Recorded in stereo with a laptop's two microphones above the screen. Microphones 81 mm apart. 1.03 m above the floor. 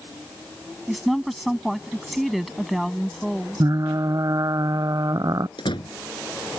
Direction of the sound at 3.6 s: 50° right (ahead or behind).